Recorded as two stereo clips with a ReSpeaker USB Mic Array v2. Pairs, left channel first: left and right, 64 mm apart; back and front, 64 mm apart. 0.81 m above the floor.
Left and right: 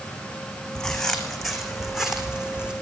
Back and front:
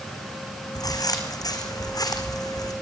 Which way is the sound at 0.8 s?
175° left.